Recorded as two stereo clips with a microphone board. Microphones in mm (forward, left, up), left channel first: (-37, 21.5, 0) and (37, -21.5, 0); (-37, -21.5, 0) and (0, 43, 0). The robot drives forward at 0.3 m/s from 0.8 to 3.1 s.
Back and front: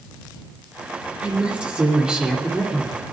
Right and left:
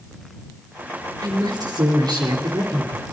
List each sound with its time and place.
1.2 s a woman speaking: 45° left, 3 m; by 3.0 s 55° left, 2.5 m